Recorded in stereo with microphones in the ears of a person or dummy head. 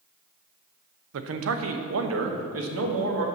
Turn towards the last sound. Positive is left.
turn(degrees=-80)